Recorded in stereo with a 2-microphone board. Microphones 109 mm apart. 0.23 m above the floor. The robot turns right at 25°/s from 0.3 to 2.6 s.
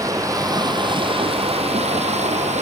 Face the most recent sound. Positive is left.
turn(degrees=-90)